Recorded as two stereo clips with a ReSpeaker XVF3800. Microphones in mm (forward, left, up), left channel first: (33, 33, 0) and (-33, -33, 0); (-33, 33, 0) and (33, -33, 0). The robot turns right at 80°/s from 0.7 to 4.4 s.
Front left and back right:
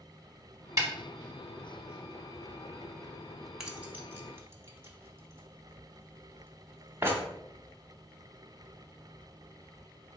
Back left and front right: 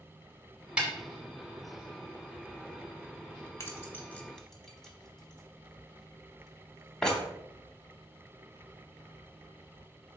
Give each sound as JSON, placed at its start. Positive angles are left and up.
{"t": 0.8, "sound": "a snare drum", "azimuth_deg": -115, "distance_m": 1.0}
{"t": 3.6, "sound": "keys jangling", "azimuth_deg": 145, "distance_m": 0.8}